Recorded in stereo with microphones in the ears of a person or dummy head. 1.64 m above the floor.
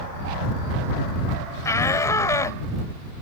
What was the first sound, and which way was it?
A shout, 20° left (ahead or behind).